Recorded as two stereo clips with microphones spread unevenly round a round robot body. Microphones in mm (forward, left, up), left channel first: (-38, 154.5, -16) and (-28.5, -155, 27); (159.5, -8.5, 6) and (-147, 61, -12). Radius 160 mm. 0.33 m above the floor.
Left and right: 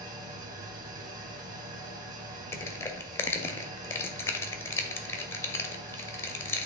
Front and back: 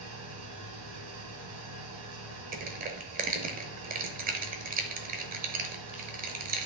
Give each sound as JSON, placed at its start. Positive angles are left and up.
{"t": 0.0, "sound": "an engine running", "azimuth_deg": -155, "distance_m": 1.9}
{"t": 2.5, "sound": "crushing", "azimuth_deg": 150, "distance_m": 0.9}